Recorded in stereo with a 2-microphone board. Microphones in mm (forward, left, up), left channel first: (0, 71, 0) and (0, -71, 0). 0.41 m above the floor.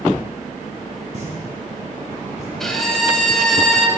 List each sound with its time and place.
1.1 s a pop: 55° right (ahead or behind), 2.5 m
2.6 s a violin: centre (ahead or behind), 1.0 m